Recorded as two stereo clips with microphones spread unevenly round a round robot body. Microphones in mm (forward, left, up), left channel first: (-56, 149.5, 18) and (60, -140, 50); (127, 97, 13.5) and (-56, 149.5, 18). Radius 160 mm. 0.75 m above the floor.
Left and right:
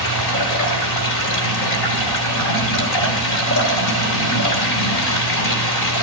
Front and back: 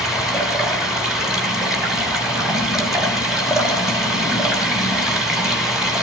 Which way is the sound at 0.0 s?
75° left.